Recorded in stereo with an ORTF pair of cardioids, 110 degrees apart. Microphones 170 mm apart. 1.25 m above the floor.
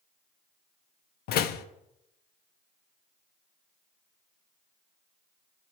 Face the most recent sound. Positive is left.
turn(degrees=70)